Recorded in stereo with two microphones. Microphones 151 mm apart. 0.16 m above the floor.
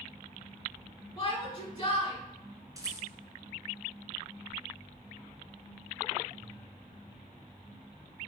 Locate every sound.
1.2 s a shout: 30° left (ahead or behind), 1.4 m
2.8 s a rattle: 25° right (ahead or behind), 1.4 m